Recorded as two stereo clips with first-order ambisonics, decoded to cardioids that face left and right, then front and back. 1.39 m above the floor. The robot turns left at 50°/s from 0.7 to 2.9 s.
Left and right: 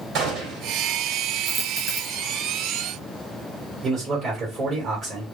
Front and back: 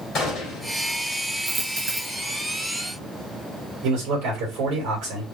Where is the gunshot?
55° right, 2 m; by 0.8 s 60° right, 2 m.